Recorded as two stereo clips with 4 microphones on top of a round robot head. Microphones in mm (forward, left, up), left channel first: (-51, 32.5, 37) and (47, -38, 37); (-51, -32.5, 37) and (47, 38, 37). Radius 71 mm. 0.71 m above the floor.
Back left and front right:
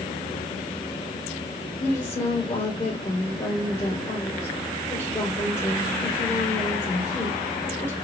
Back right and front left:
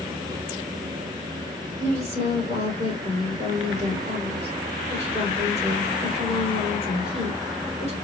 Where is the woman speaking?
70° left, 3.5 m.